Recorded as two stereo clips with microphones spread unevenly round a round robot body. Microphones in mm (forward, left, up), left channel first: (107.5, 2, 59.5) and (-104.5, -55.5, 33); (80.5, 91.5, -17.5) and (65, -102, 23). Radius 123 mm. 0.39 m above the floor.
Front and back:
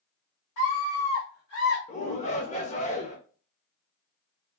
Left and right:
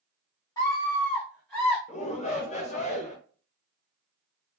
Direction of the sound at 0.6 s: 30° left.